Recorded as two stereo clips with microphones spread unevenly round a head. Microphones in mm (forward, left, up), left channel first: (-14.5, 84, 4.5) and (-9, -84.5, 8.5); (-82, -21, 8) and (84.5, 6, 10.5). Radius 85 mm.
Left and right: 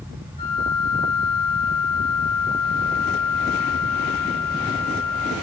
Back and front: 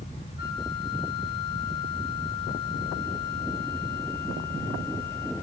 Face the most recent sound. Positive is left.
turn(degrees=150)